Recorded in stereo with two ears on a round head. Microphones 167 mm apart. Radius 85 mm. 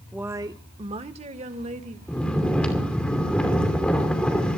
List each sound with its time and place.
0.1 s a woman speaking: 5° right (ahead or behind), 0.5 m; by 2.0 s 40° right (ahead or behind), 2.0 m
2.1 s snoring: 5° left (ahead or behind), 2.5 m